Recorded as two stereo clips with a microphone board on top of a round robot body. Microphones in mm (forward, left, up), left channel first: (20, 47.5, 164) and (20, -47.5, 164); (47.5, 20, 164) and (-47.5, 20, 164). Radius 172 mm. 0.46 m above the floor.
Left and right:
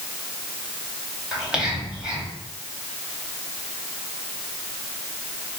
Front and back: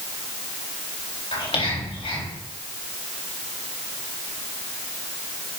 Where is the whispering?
10° right, 4 m.